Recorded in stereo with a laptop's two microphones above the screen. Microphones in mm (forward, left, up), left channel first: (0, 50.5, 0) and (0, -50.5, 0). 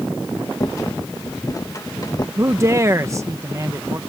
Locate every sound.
0.6 s a rattle: 35° left (ahead or behind)
2.4 s a man speaking: 30° right (ahead or behind)